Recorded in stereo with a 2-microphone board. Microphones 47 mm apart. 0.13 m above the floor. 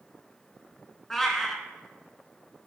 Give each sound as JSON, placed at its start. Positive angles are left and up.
{"t": 1.1, "sound": "a cat meowing", "side_deg": 5, "distance_m": 0.7}